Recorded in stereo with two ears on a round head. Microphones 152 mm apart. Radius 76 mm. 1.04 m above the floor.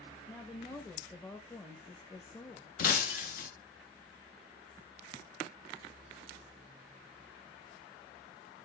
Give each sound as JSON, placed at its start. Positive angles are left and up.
{"t": 0.3, "sound": "a woman speaking", "side_deg": 15, "distance_m": 1.2}
{"t": 2.8, "sound": "breaking glass", "side_deg": 50, "distance_m": 1.5}